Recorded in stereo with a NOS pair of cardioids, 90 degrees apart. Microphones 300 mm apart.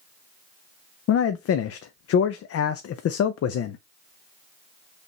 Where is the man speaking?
55° left, 0.6 m.